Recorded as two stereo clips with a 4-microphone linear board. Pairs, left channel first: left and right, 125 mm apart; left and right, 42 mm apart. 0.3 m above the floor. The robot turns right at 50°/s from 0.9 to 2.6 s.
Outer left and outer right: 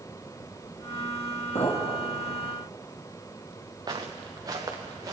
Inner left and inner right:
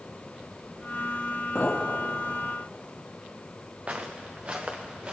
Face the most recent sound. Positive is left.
turn(degrees=-30)  # may be behind; listen again after turning